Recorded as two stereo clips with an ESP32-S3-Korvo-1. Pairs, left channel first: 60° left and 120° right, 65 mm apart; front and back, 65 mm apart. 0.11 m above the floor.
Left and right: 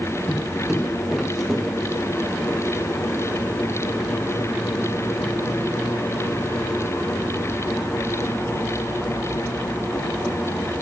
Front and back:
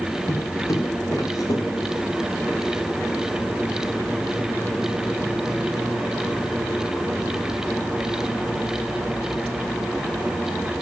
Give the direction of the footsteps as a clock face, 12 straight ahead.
1 o'clock.